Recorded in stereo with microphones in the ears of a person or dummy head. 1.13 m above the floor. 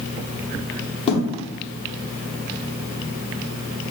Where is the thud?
20° left (ahead or behind), 1.1 m.